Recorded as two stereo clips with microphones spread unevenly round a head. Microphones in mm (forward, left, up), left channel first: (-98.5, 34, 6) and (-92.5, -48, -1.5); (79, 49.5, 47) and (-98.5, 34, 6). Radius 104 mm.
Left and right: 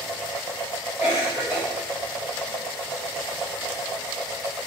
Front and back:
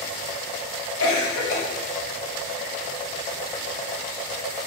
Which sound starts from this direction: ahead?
A cough, at 1.0 s.